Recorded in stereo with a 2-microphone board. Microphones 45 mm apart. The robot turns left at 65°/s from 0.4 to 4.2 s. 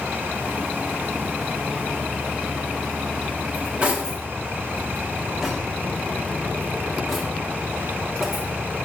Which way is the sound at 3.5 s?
50° right (ahead or behind).